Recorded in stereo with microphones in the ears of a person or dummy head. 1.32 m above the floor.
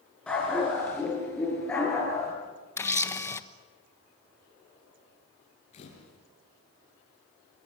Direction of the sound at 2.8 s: 15° left (ahead or behind).